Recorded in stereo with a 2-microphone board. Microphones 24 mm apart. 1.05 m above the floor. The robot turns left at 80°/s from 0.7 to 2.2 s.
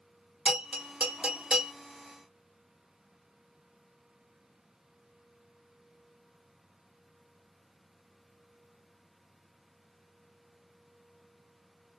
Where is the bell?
60° right (ahead or behind), 1.3 m; by 1.7 s 30° right (ahead or behind), 1.3 m.